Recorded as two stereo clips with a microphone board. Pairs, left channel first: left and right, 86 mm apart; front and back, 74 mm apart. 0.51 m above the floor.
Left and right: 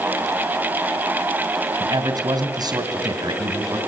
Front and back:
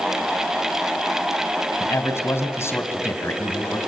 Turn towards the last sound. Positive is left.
turn(degrees=-55)